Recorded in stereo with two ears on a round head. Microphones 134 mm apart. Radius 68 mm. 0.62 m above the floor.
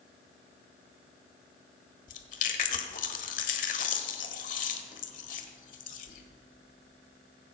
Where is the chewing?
55° left (ahead or behind), 1.3 m.